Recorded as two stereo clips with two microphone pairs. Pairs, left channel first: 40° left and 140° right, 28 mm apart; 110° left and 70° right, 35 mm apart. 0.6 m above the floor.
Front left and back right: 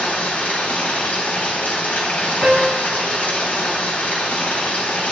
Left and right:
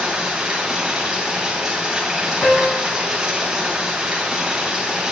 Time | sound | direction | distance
0.0 | running water | 5° left | 3 m
2.4 | a piano | 155° left | 1.2 m